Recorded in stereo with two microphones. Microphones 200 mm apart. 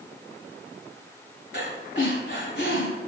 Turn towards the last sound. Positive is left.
turn(degrees=75)  # may be behind; listen again after turning